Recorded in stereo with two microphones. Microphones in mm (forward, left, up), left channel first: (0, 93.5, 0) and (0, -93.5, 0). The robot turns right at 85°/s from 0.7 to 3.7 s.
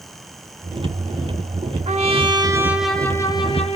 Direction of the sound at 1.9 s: 85° right.